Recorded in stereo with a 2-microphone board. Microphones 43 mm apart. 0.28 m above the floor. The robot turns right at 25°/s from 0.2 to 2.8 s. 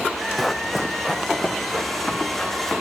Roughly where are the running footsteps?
Centre.